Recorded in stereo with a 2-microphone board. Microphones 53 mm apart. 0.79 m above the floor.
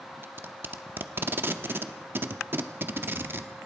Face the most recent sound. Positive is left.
turn(degrees=-45)  # may be behind; listen again after turning